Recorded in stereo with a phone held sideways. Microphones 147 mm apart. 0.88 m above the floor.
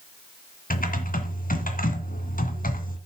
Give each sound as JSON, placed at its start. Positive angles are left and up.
{"t": 0.7, "sound": "typing on a keyboard", "side_deg": 75, "distance_m": 2.0}